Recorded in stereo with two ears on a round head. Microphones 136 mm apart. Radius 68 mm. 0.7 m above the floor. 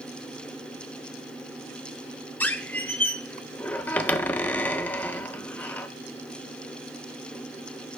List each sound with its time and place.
2.4 s a squeak: 10° left (ahead or behind), 0.5 m